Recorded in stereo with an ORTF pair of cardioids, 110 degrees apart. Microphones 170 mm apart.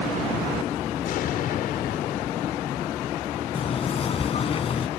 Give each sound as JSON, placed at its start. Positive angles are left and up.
{"t": 1.1, "sound": "an explosion", "azimuth_deg": 60}
{"t": 3.5, "sound": "knocking", "azimuth_deg": 35}